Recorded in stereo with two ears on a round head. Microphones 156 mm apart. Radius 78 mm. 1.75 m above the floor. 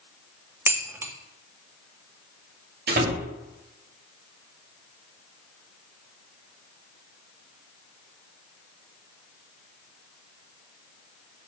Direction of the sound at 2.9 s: 55° right (ahead or behind).